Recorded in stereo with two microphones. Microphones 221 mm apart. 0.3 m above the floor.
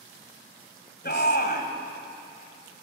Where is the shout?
45° left (ahead or behind), 1.6 m.